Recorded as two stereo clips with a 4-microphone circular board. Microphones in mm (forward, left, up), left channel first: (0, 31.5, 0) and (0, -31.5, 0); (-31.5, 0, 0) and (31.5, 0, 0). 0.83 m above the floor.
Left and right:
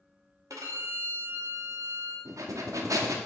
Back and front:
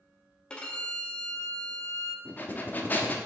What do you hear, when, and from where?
0.5 s a violin: 110° right, 0.9 m
2.2 s breathing: 120° right, 0.7 m